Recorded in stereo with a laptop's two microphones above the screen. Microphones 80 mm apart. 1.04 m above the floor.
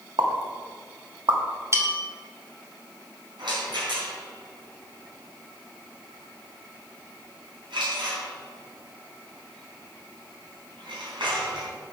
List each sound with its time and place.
0.2 s a pop: 85° right, 1.5 m
1.7 s a bell: 35° right (ahead or behind), 1.5 m
3.4 s a rattle: 80° right, 3.5 m